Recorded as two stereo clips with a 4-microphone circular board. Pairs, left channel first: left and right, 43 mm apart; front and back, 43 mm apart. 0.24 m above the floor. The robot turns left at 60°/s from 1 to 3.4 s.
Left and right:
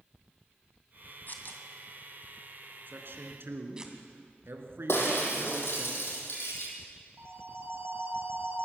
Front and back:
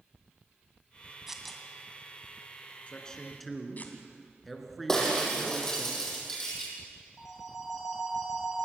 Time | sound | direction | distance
1.3 | tearing paper | 105° left | 2 m
2.9 | a man speaking | 60° right | 3 m
4.9 | breaking glass | 80° left | 5 m
7.2 | a phone ringing | 95° right | 4 m